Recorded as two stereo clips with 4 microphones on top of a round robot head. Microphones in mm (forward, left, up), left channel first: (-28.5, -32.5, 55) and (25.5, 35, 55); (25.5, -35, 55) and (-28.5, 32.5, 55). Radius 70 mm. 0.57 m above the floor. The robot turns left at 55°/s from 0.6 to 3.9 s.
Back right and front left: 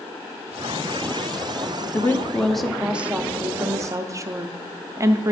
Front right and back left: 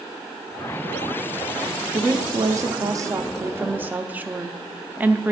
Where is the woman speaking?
Straight behind, 0.7 m; by 5.3 s 70° left, 0.7 m.